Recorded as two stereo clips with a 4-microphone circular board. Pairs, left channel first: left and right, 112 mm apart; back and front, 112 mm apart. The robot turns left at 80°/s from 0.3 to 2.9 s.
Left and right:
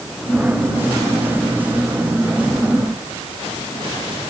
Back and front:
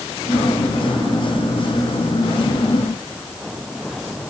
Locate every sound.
Only background noise.